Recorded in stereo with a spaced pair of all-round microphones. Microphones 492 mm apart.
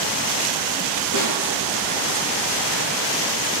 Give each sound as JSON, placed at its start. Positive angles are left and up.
{"t": 1.1, "sound": "a snare drum", "side_deg": 40, "distance_m": 3.0}